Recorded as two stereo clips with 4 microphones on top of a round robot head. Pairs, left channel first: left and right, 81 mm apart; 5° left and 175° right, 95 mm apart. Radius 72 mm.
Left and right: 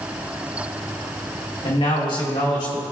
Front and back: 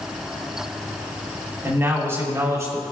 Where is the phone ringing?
No phone ringing in this recording.